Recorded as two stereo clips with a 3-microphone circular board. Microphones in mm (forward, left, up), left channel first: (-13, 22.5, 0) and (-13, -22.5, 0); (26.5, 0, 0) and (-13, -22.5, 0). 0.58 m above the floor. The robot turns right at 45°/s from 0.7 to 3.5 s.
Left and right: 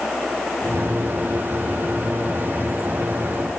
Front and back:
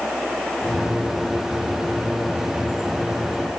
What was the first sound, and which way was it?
Only background noise.